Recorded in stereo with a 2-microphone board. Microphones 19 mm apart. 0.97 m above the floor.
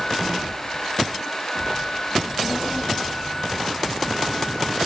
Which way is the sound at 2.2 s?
45° left (ahead or behind).